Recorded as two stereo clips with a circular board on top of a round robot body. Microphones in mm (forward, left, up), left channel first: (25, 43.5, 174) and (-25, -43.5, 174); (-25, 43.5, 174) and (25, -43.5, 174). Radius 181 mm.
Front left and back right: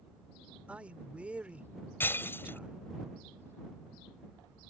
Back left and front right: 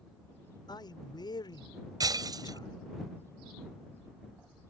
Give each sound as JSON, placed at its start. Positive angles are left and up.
{"t": 0.7, "sound": "a man speaking", "azimuth_deg": 165}
{"t": 2.0, "sound": "breaking glass", "azimuth_deg": -10}